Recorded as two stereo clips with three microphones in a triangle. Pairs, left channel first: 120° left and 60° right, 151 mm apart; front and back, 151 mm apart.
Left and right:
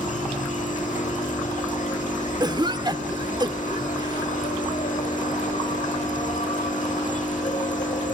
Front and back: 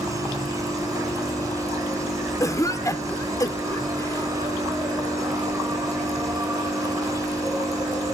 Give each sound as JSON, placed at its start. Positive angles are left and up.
{"t": 0.0, "sound": "an insect", "azimuth_deg": 115, "distance_m": 1.3}
{"t": 2.4, "sound": "a cough", "azimuth_deg": -45, "distance_m": 0.9}